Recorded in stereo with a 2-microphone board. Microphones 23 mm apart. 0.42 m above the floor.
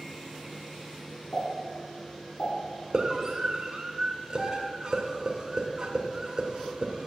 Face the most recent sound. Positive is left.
turn(degrees=-35)  # may be behind; listen again after turning